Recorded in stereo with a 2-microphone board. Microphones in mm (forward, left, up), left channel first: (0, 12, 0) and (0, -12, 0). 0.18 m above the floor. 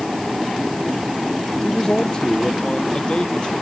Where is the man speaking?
25° left (ahead or behind); by 3.5 s 35° left (ahead or behind).